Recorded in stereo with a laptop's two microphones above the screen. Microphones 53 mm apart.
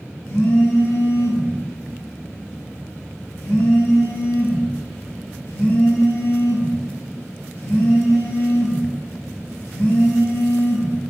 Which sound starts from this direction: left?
A phone buzzing, at 0.2 s.